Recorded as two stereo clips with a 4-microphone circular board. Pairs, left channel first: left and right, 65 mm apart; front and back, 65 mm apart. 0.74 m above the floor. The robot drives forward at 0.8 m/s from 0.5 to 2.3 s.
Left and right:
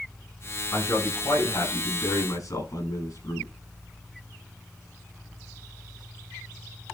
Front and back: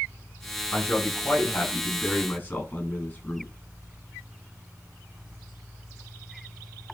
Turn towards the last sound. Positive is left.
turn(degrees=70)